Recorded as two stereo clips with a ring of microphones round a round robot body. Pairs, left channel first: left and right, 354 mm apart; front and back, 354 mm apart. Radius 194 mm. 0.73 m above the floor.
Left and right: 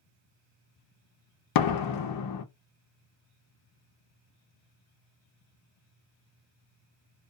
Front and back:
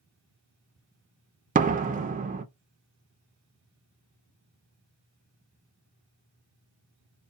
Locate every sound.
1.6 s a door slam: 110° left, 0.6 m